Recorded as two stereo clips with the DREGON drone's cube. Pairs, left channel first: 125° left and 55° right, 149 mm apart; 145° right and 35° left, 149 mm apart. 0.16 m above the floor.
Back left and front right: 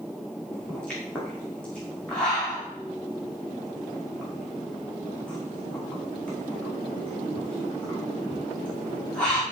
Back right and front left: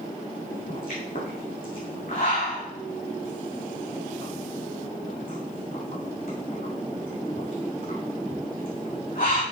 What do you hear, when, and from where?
0.5 s a pop: 155° right, 6 m